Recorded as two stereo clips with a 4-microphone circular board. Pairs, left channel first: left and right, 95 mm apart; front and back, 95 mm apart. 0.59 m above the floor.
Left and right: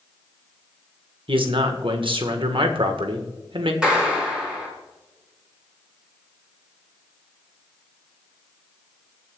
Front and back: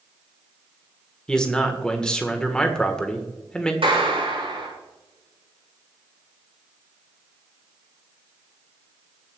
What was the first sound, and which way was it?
A man speaking, 80° right.